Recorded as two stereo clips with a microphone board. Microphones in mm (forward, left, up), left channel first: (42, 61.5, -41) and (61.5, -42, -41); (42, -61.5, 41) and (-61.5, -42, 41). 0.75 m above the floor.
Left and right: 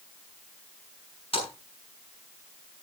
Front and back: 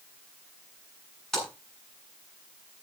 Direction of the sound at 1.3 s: 75° left.